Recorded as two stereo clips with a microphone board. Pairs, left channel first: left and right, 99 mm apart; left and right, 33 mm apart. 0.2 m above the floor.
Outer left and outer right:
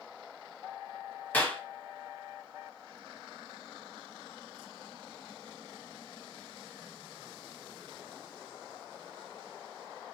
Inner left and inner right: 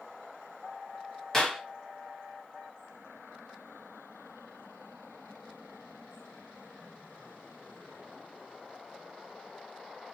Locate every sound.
1.3 s a clap: 15° left (ahead or behind), 0.8 m